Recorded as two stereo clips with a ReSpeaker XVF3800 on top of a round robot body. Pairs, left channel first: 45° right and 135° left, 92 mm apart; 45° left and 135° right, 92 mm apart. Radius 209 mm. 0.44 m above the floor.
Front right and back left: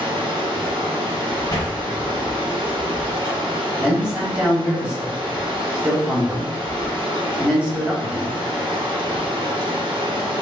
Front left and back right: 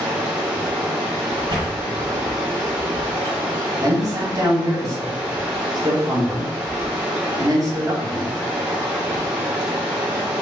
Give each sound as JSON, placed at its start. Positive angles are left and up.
{"t": 0.0, "sound": "running water", "azimuth_deg": 150, "distance_m": 1.6}
{"t": 1.5, "sound": "a sliding door", "azimuth_deg": -105, "distance_m": 0.5}
{"t": 3.8, "sound": "a man speaking", "azimuth_deg": -150, "distance_m": 1.6}